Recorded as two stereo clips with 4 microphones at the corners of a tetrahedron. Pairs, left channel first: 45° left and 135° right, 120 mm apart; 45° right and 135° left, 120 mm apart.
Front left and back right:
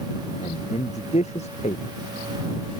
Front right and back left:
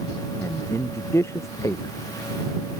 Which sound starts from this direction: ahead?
A man speaking, at 0.4 s.